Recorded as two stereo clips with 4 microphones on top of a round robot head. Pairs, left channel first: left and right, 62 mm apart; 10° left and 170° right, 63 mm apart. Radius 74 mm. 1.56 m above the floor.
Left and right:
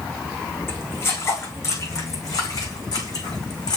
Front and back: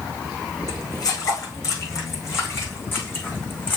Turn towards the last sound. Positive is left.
turn(degrees=70)